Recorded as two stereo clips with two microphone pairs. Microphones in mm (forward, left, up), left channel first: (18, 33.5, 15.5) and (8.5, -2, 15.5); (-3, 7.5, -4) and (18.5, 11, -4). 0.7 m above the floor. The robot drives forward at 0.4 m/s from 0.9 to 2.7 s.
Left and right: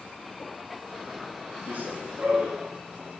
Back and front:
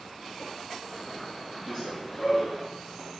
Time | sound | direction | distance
1.7 | running footsteps | 115° right | 8 m